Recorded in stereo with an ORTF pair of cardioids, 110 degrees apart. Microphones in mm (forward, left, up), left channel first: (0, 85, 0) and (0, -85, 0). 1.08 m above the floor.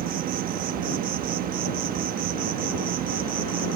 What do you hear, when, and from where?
0.0 s an insect: 65° right